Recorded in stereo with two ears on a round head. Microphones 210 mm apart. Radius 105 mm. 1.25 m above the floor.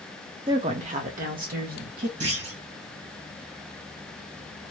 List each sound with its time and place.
0.5 s a woman speaking: 20° right (ahead or behind), 0.7 m; by 2.1 s 45° right (ahead or behind), 1.7 m
2.2 s a clunk: 70° right (ahead or behind), 2 m